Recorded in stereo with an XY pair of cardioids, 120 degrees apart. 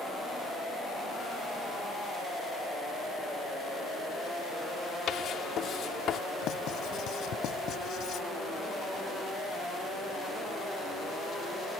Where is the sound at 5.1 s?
55° left.